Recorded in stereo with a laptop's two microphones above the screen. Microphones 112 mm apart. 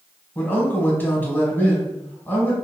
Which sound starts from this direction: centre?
A man speaking, at 0.3 s.